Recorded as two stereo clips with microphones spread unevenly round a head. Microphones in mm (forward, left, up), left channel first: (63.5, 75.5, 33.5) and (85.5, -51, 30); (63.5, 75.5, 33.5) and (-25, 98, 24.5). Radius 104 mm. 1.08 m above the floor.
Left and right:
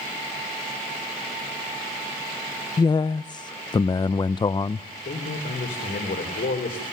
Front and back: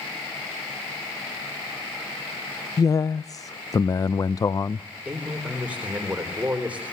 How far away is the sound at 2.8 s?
About 0.5 m.